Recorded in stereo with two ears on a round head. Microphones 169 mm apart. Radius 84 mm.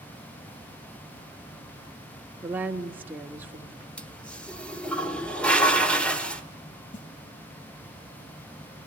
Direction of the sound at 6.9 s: 65° left (ahead or behind).